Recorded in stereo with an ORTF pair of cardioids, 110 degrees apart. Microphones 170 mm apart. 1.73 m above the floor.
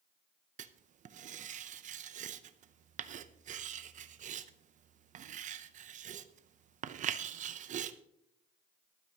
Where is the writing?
45° right, 0.7 m.